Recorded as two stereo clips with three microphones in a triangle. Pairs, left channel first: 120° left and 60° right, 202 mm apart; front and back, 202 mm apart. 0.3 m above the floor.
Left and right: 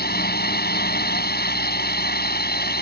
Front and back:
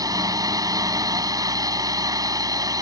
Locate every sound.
0.0 s a drone: 115° left